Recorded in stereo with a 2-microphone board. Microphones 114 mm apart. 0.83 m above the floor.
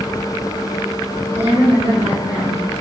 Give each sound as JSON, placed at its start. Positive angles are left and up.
{"t": 1.4, "sound": "a woman speaking", "side_deg": -65, "distance_m": 1.8}